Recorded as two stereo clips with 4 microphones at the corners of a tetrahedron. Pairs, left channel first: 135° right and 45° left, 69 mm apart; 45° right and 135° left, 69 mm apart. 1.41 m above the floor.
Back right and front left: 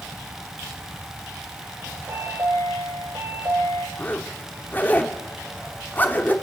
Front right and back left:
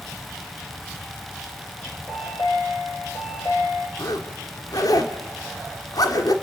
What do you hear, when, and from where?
2.1 s a chime: 5° right, 9.5 m
4.0 s a zipper: 70° right, 2.5 m